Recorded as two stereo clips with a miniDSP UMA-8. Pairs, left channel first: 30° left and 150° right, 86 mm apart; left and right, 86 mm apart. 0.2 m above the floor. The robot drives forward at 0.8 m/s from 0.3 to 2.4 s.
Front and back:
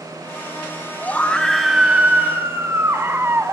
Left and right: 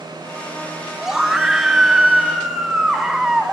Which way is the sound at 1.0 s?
15° right.